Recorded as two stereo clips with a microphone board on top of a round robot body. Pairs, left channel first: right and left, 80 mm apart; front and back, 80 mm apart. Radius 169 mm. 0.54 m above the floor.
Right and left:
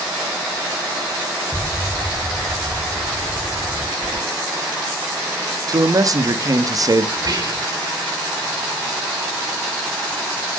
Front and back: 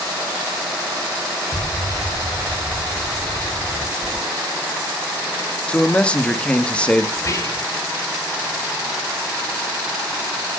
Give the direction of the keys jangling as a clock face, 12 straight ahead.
9 o'clock.